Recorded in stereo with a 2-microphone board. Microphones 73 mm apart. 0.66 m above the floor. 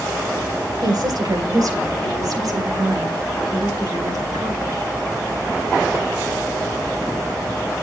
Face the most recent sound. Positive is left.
turn(degrees=-50)  # may be behind; listen again after turning